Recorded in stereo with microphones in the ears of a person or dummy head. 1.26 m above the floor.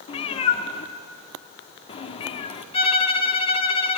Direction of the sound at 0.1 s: 35° left (ahead or behind).